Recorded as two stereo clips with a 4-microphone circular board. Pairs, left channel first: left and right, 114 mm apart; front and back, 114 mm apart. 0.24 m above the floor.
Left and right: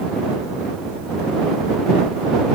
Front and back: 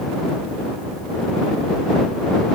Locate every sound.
Only background noise.